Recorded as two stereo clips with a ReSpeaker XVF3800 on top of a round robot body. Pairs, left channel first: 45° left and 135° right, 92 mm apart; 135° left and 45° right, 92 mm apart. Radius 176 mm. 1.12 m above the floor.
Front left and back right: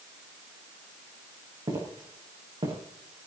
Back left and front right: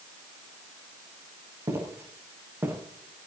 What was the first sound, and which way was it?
Footsteps, 95° right.